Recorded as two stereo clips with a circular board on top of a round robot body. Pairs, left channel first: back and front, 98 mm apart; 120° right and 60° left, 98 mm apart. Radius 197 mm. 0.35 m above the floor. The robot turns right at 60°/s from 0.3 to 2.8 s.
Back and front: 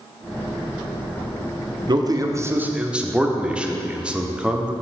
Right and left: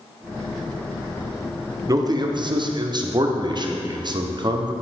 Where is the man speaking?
20° left, 1.2 m; by 4.7 s 75° left, 1.2 m.